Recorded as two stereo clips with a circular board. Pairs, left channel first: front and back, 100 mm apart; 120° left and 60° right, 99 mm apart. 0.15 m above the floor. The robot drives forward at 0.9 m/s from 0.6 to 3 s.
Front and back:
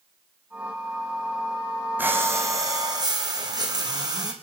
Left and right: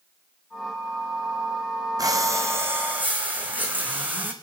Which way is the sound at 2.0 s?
110° right.